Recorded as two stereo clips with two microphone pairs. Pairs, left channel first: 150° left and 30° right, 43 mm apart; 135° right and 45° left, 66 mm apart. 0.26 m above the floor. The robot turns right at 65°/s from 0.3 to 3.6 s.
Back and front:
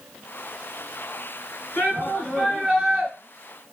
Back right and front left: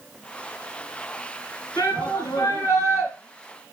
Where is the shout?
170° right, 5 m; by 3.1 s 80° right, 5 m.